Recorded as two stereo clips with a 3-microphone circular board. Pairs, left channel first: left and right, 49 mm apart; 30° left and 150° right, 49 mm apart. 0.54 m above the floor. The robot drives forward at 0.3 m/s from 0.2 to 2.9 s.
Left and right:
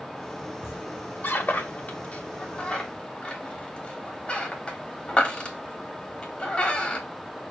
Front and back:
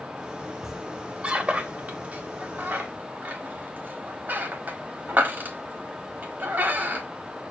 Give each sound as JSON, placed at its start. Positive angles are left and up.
{"t": 0.6, "sound": "a squeak", "azimuth_deg": 130, "distance_m": 0.5}